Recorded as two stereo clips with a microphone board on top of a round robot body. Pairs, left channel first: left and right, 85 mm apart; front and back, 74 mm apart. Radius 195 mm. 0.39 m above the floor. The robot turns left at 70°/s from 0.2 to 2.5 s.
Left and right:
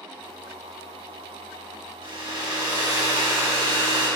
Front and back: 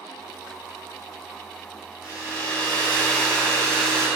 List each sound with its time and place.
2.0 s a hair dryer: 105° right, 4 m; by 4.1 s 140° right, 4 m